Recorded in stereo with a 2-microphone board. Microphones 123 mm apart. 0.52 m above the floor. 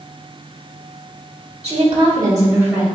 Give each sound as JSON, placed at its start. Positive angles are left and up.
{"t": 1.6, "sound": "a woman speaking", "side_deg": -60, "distance_m": 1.5}